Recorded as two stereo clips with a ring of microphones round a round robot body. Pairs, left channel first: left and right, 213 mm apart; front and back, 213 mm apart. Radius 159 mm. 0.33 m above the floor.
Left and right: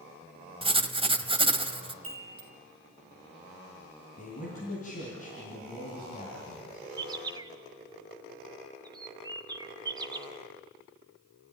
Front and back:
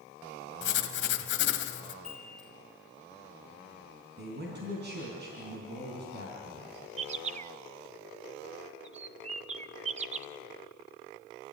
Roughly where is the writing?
Ahead right.